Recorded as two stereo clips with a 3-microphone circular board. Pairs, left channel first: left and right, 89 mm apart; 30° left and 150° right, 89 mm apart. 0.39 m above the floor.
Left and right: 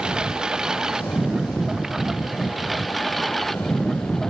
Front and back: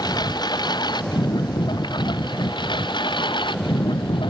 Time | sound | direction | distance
0.0 | a lawn mower | 10° right | ?